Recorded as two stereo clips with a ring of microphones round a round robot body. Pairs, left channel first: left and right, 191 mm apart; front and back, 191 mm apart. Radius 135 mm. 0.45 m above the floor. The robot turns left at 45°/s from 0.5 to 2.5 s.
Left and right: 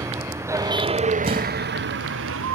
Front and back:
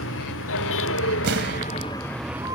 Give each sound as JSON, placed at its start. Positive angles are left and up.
{"t": 0.0, "sound": "a vehicle", "azimuth_deg": -15}
{"t": 1.2, "sound": "an explosion", "azimuth_deg": -150}